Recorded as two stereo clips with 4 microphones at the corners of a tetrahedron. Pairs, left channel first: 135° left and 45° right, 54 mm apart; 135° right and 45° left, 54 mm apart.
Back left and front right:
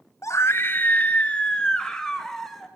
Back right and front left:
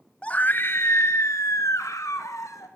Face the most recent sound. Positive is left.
turn(degrees=-145)